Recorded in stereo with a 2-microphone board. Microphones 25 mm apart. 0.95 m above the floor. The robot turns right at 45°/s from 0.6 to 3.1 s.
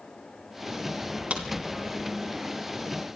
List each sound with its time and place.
1.3 s a crack: 60° right (ahead or behind), 3 m; by 1.5 s 50° right (ahead or behind), 3 m